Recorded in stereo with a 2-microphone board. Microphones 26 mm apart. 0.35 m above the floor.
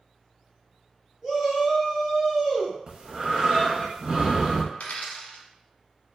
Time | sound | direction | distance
1.2 | a shout | 20° right (ahead or behind) | 1.3 m
2.9 | breathing | 40° right (ahead or behind) | 0.6 m
4.7 | a dropped coin | 75° left (ahead or behind) | 0.6 m